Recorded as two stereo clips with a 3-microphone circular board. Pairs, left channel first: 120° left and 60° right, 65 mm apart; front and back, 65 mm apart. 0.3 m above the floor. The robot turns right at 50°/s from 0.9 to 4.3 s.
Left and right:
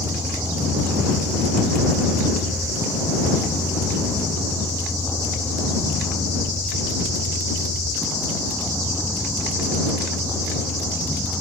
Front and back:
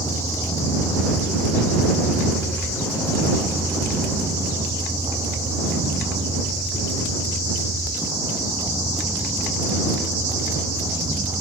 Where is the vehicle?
25° right; by 11.4 s 160° right.